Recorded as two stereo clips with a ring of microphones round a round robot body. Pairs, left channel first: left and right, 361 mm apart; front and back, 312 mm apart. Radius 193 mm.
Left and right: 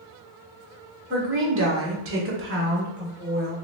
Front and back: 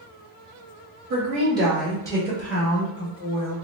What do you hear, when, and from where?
1.1 s a woman speaking: 135° right, 1.1 m; by 3.5 s 25° right, 1.6 m